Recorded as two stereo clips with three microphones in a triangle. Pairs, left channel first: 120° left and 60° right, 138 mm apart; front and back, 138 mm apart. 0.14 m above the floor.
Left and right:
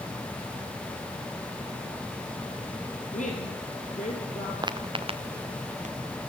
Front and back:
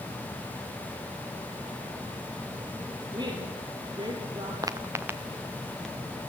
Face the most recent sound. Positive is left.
turn(degrees=-85)